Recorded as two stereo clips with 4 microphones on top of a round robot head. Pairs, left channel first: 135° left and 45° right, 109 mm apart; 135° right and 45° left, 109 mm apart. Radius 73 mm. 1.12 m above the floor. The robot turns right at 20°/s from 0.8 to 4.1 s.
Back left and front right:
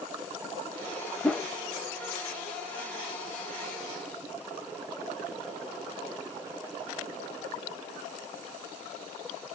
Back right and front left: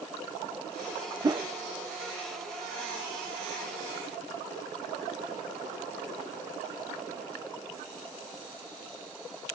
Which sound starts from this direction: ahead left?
A whoosh, at 1.2 s.